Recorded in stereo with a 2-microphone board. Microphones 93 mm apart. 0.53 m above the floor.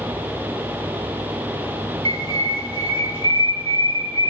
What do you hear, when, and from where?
2.0 s a bird: 75° right (ahead or behind), 1.0 m